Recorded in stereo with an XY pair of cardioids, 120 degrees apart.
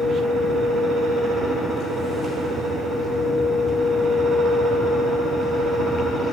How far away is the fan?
About 1.5 m.